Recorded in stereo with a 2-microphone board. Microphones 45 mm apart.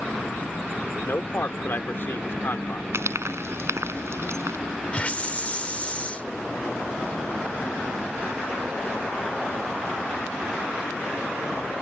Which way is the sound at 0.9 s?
55° left (ahead or behind).